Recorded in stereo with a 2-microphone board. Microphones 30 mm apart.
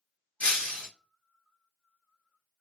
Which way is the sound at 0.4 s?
50° left (ahead or behind).